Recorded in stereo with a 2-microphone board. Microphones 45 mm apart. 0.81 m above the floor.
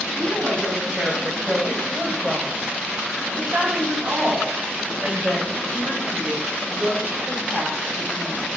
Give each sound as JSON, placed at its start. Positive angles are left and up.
{"t": 0.1, "sound": "a woman speaking", "side_deg": -20, "distance_m": 4.0}